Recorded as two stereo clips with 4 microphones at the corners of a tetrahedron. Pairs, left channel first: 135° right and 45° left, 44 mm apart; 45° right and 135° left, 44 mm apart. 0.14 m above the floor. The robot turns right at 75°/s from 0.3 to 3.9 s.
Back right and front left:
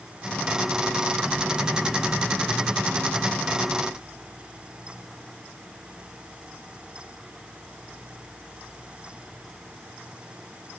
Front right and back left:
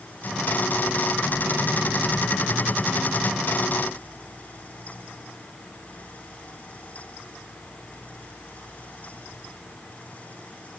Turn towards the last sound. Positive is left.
No sound to turn to.